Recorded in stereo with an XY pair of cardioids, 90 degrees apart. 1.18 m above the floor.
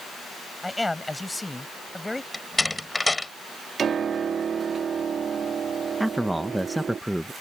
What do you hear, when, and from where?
0.6 s a man speaking: 15° left
2.3 s a door slam: 20° left
3.8 s a piano: 55° right
6.0 s a man speaking: 5° right